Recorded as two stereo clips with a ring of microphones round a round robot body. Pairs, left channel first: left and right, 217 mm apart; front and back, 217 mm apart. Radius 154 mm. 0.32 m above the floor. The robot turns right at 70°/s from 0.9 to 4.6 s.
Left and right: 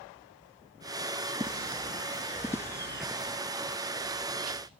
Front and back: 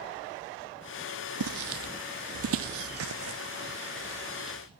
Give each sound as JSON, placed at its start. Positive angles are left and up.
{"t": 1.4, "sound": "footsteps", "azimuth_deg": -170, "distance_m": 1.1}